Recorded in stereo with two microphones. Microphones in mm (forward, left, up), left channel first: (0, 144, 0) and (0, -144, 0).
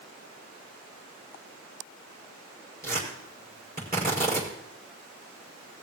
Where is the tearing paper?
30° right (ahead or behind), 6 m.